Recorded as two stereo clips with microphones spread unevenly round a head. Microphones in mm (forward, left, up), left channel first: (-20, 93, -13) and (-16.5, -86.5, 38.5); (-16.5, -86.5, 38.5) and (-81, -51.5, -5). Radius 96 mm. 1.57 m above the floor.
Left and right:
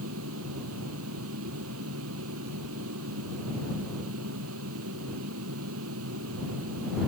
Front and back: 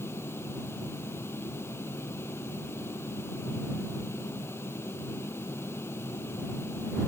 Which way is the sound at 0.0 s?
85° right.